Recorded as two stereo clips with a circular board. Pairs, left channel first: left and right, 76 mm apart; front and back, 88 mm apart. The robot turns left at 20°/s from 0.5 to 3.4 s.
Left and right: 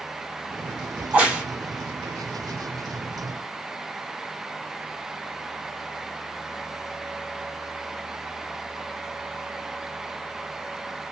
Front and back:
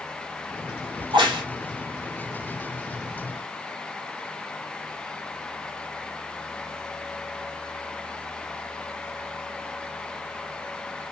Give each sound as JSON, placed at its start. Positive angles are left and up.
{"t": 1.0, "sound": "a crack", "azimuth_deg": -155, "distance_m": 2.5}